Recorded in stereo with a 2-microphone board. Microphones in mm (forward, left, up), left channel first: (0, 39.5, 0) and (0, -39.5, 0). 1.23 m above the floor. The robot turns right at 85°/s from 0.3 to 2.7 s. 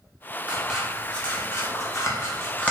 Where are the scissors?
20° right (ahead or behind), 0.8 m; by 2.7 s 15° left (ahead or behind), 0.8 m.